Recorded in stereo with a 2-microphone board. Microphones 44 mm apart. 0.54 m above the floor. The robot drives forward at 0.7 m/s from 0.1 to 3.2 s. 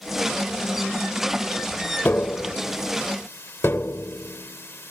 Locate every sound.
2.0 s tapping: 50° left (ahead or behind); by 4.9 s 65° left (ahead or behind)